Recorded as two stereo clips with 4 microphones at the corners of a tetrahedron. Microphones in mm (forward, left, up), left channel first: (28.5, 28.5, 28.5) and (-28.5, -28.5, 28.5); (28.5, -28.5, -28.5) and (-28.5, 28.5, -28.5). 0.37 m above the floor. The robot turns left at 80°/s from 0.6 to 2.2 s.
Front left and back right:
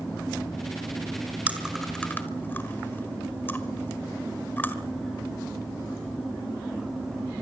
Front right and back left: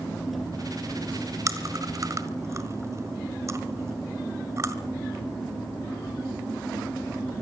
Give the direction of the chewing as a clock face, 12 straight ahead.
7 o'clock.